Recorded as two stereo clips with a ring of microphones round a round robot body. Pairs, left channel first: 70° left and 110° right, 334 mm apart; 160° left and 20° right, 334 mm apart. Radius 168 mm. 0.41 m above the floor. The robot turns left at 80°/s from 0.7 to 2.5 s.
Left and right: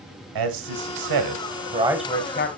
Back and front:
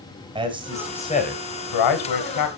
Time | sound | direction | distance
0.3 | a man speaking | 95° right | 2 m